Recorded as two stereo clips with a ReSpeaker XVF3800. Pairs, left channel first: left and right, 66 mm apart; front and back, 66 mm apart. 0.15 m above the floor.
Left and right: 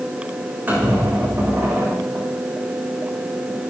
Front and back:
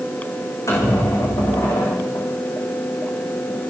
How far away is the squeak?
About 7.5 m.